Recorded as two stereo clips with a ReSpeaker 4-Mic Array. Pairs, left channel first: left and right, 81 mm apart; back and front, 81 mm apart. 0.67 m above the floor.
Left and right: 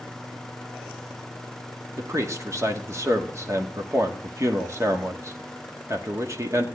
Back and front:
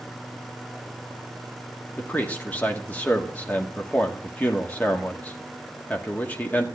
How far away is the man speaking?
About 1.5 m.